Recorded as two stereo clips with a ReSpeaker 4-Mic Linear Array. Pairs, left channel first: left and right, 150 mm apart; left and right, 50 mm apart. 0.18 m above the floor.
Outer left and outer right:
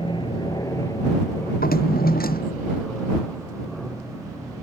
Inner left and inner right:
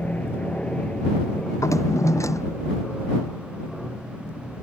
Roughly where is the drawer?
Left.